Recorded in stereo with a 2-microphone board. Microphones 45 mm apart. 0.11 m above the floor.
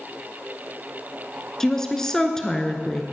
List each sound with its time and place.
1.6 s a woman speaking: 10° left (ahead or behind), 1.1 m